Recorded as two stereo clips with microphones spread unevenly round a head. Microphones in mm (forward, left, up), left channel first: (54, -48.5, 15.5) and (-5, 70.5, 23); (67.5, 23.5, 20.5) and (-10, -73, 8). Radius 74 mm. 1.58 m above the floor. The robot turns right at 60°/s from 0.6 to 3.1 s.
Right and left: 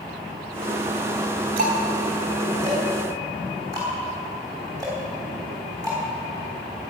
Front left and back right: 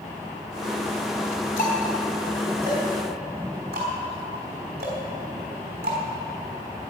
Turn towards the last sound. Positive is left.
turn(degrees=180)